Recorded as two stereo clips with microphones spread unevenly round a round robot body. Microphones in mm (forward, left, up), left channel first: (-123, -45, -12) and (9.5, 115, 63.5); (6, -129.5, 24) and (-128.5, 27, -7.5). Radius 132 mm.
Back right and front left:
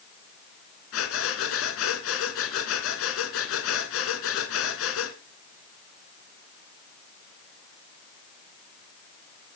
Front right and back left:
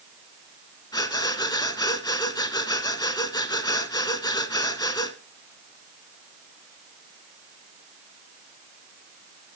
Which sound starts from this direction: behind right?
Breathing, at 0.9 s.